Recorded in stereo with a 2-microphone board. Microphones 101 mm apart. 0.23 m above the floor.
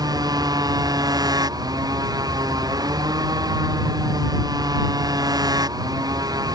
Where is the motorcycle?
40° right (ahead or behind).